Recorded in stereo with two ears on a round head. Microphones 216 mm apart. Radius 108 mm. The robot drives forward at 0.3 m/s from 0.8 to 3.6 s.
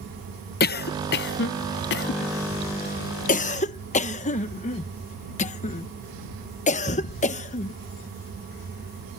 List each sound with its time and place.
0.6 s a cough: 40° left (ahead or behind); by 7.7 s 30° left (ahead or behind)